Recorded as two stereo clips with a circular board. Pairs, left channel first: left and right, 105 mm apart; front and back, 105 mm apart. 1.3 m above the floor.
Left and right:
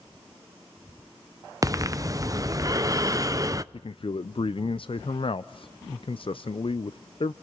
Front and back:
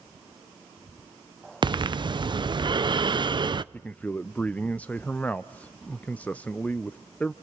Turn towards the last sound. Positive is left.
turn(degrees=75)